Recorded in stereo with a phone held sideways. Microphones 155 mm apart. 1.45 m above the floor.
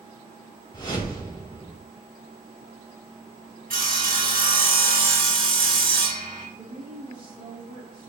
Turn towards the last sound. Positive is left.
turn(degrees=-90)